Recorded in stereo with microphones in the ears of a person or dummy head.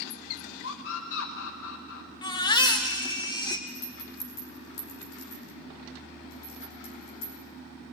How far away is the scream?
About 1.3 m.